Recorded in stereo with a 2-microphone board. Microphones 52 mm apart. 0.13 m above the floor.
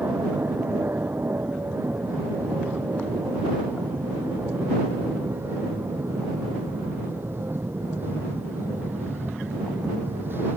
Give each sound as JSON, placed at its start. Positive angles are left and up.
{"t": 0.0, "sound": "an aircraft", "side_deg": -45}